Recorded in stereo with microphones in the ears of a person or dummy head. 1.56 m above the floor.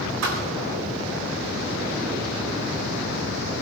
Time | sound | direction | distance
0.2 | a thud | 65° right (ahead or behind) | 4 m